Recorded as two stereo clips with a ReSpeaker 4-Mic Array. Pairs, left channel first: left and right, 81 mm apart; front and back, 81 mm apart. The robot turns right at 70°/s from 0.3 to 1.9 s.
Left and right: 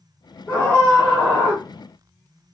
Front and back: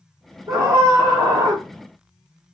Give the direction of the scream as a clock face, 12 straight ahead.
7 o'clock.